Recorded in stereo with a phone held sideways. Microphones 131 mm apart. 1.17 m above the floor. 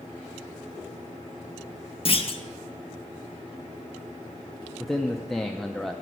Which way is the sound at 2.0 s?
45° left (ahead or behind).